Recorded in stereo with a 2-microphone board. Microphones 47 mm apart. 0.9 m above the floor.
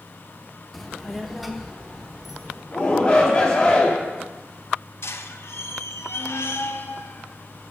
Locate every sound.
0.7 s a child speaking: centre (ahead or behind), 0.7 m; by 2.6 s 5° right (ahead or behind), 1.6 m
2.7 s a shout: 20° left (ahead or behind), 2.5 m
5.0 s a squeak: 65° left (ahead or behind), 0.6 m